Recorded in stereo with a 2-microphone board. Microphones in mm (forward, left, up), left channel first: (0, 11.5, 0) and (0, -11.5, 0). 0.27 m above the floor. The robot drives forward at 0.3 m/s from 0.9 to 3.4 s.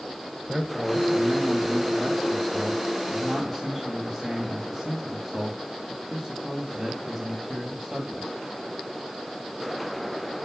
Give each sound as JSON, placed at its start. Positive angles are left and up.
{"t": 0.5, "sound": "a man speaking", "side_deg": -5, "distance_m": 1.4}